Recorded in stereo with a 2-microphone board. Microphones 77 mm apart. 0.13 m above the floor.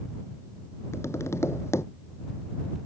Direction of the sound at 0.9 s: 35° left (ahead or behind).